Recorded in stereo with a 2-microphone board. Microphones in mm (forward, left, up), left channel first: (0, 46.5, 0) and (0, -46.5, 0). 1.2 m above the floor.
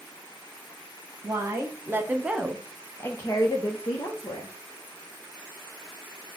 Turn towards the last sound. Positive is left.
turn(degrees=55)  # may be behind; listen again after turning